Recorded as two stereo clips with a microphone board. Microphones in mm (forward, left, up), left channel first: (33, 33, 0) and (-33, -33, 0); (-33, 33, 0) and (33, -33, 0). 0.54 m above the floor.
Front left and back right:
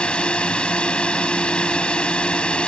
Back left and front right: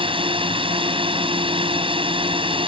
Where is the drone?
35° right.